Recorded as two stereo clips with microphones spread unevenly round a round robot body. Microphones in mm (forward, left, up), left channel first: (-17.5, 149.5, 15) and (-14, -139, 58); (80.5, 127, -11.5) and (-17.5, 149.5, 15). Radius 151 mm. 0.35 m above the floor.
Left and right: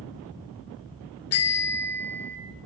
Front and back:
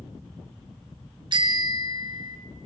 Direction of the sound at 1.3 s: 125° left.